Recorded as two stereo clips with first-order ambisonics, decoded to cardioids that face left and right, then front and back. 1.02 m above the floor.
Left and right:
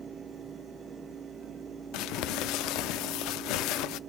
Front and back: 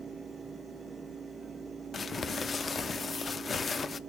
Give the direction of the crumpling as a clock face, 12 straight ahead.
10 o'clock.